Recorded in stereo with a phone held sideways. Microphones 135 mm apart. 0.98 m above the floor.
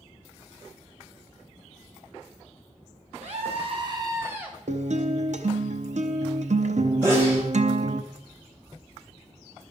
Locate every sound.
3.2 s a scream: 65° right (ahead or behind), 2.5 m; by 4.6 s 5° right (ahead or behind), 2.0 m
4.7 s a guitar: 70° right (ahead or behind), 0.7 m
7.0 s a sneeze: 20° right (ahead or behind), 4 m